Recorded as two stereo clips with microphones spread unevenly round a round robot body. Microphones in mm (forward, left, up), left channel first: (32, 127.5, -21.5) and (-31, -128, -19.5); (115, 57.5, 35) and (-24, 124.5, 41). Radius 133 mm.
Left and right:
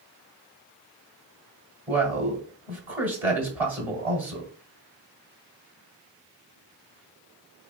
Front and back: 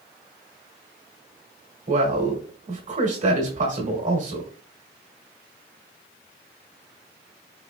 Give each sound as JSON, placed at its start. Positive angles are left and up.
{"t": 1.9, "sound": "a man speaking", "azimuth_deg": 175, "distance_m": 1.7}